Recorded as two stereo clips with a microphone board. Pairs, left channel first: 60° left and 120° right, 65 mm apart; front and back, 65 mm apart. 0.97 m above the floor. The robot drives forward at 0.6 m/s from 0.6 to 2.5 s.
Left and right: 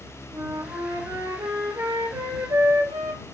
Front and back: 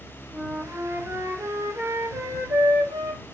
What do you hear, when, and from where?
0.3 s a flute: 130° right, 3 m; by 3.2 s 145° right, 4 m